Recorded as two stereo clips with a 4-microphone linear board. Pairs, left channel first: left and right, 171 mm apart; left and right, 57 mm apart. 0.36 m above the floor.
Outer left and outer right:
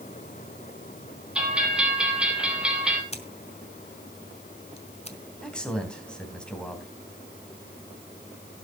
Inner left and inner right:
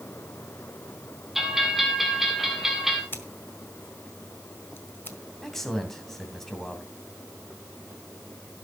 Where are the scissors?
40° left (ahead or behind), 1.5 m.